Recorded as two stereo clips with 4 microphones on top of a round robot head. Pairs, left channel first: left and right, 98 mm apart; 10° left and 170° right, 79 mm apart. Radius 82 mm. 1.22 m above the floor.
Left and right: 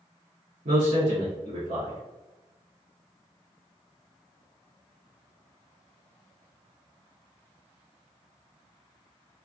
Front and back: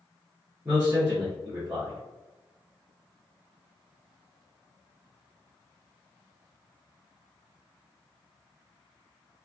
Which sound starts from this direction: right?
A man speaking, at 0.7 s.